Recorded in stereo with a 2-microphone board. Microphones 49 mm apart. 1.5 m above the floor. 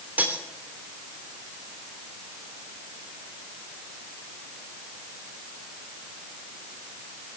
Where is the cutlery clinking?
35° right (ahead or behind), 3 m.